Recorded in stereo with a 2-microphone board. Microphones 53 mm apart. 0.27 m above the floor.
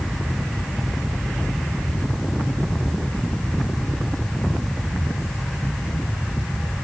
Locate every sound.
Only background noise.